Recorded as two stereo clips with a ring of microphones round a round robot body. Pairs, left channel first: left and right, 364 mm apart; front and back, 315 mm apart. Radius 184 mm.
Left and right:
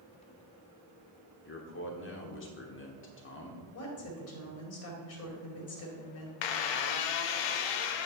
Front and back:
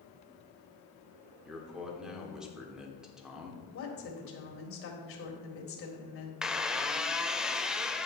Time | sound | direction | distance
1.4 | a man speaking | 95° left | 1.4 m
3.7 | a woman speaking | 45° left | 2 m
6.4 | a squeak | 90° left | 0.7 m